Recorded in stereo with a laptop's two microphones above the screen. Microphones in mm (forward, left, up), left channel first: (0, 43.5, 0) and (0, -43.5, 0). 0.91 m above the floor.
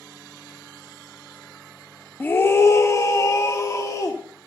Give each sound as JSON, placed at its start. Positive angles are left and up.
{"t": 2.2, "sound": "a scream", "side_deg": 25, "distance_m": 0.7}